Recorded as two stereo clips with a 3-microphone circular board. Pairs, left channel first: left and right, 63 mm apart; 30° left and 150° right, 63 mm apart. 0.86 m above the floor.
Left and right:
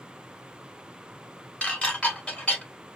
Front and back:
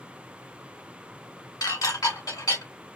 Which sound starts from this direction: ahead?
Dishes clattering, at 1.6 s.